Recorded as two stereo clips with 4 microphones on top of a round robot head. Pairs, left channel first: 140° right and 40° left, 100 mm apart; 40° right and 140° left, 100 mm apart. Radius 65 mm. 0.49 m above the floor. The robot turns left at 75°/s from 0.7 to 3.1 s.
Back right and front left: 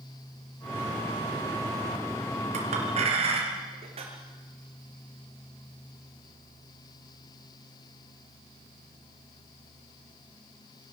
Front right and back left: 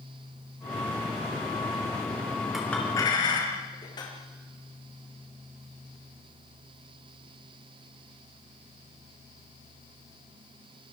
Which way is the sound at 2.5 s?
50° left.